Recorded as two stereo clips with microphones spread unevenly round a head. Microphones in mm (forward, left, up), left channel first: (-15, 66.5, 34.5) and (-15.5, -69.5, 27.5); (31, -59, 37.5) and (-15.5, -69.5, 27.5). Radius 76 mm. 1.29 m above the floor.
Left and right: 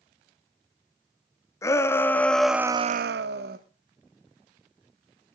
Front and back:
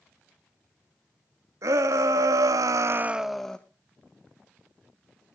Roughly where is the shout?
Behind.